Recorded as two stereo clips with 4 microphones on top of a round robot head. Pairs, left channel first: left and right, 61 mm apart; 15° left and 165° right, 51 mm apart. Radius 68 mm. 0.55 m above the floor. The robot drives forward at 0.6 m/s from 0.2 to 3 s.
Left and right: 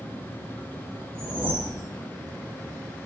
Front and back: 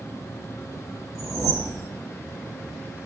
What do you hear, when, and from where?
1.1 s a whoosh: 150° right, 0.6 m; by 1.9 s 165° right, 1.0 m